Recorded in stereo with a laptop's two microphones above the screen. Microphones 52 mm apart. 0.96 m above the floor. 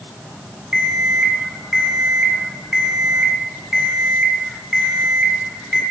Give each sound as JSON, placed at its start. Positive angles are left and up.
{"t": 0.7, "sound": "an alarm clock", "side_deg": -10, "distance_m": 6.0}